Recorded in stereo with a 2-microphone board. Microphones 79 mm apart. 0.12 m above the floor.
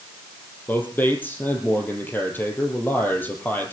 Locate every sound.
0.7 s a man speaking: 25° left (ahead or behind), 3.5 m